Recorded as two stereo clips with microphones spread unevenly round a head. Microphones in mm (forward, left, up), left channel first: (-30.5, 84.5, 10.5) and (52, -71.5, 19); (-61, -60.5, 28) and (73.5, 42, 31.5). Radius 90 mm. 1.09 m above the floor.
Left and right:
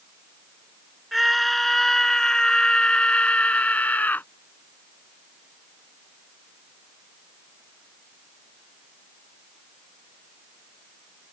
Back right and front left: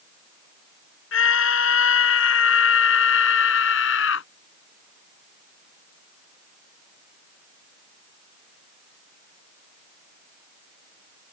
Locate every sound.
1.1 s a scream: 150° right; by 4.3 s 160° right